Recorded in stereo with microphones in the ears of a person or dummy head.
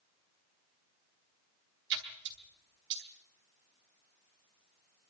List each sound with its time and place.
1.9 s a splash: 60° right (ahead or behind), 3 m